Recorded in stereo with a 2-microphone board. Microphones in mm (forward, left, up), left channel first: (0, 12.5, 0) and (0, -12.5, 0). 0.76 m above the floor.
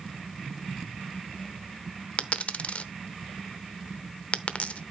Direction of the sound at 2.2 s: 60° left (ahead or behind).